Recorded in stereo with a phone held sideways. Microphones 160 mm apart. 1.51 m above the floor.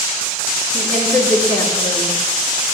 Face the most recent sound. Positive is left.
turn(degrees=10)  # may be behind; listen again after turning